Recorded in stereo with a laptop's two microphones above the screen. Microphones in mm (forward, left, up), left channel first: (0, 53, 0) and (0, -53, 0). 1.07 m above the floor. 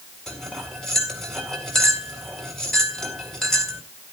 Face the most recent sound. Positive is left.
turn(degrees=5)  # may be behind; listen again after turning